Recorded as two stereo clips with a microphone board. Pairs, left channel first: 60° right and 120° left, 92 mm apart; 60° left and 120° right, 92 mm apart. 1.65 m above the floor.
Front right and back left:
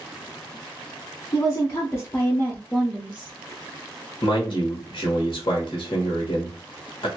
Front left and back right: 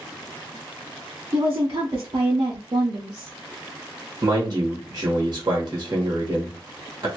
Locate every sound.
1.3 s a woman speaking: 90° right, 1.1 m; by 3.3 s 170° right, 0.7 m
4.2 s a man speaking: 80° right, 1.3 m